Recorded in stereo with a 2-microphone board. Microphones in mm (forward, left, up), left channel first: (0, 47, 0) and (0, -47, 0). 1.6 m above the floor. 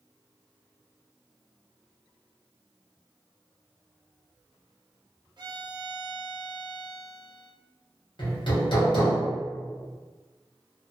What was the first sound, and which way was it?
A violin, 50° right (ahead or behind).